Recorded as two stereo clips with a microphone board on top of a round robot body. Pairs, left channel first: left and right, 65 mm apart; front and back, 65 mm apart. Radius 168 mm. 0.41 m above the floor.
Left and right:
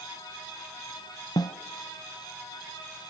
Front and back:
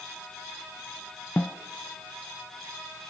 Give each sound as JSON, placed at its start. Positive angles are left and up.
{"t": 1.4, "sound": "a snare drum", "azimuth_deg": 70, "distance_m": 0.6}